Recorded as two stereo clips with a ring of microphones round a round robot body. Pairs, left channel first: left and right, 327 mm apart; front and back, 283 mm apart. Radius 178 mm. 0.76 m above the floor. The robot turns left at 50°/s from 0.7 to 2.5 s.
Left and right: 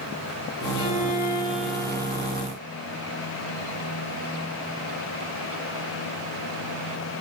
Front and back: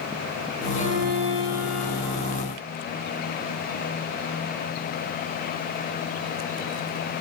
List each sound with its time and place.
0.8 s a violin: 140° left, 3.5 m; by 2.5 s 55° left, 3.5 m